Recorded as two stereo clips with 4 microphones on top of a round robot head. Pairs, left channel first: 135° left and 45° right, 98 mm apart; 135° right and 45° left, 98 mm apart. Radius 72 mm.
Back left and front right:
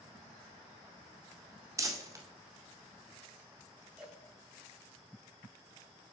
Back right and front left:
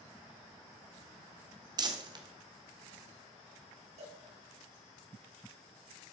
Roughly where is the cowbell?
Ahead left.